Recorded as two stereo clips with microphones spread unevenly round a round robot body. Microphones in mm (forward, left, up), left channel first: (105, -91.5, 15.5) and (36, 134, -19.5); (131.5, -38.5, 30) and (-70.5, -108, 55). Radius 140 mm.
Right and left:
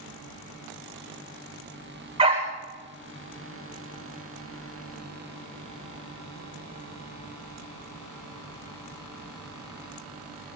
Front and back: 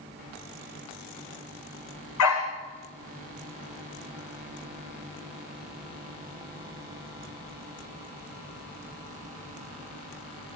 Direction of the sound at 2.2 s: 40° left.